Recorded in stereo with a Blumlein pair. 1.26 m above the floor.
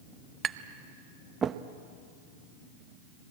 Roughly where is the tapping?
Ahead.